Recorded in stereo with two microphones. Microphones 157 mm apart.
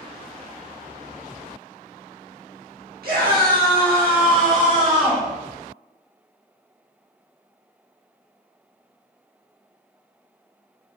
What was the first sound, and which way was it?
A scream, 80° right.